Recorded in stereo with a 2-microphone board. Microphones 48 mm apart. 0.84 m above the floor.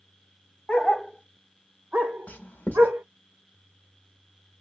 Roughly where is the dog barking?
Left.